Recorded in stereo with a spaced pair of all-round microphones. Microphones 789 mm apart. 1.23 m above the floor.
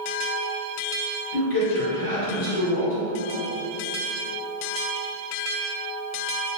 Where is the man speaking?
75° left (ahead or behind), 1.7 m.